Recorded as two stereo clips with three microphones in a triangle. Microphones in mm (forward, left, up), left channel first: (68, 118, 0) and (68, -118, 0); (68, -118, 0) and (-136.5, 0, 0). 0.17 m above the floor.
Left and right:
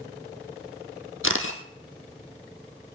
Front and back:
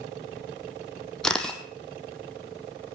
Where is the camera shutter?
55° left, 1.5 m.